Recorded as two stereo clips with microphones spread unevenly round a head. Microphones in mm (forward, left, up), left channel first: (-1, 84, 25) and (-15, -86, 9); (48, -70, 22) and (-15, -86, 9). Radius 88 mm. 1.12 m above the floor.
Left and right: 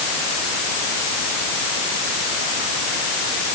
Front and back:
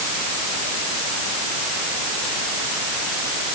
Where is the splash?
No splash in this recording.